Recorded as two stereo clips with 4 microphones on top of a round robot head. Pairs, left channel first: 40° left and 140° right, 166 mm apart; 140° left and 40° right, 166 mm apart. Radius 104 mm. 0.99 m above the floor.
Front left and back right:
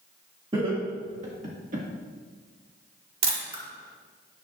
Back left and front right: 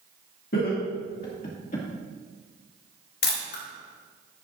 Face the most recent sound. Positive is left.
turn(degrees=160)